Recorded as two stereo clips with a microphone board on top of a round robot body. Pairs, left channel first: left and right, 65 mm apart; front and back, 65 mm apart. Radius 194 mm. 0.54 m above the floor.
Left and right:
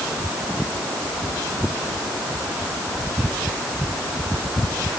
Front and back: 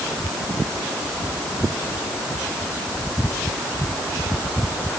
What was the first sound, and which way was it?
Only background noise.